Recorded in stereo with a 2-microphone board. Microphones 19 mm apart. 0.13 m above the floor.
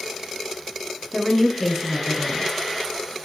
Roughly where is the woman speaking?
Centre.